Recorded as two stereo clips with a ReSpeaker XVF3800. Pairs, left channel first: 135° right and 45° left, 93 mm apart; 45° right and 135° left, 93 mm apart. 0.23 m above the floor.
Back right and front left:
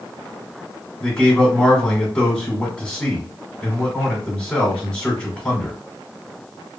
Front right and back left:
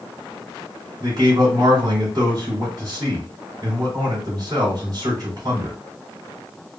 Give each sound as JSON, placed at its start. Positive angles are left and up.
{"t": 1.0, "sound": "a man speaking", "azimuth_deg": 145, "distance_m": 2.0}